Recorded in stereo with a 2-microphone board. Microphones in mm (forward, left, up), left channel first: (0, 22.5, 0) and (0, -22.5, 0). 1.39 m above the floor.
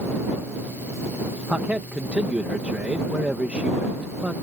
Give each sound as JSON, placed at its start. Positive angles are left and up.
{"t": 1.5, "sound": "a man speaking", "side_deg": -30}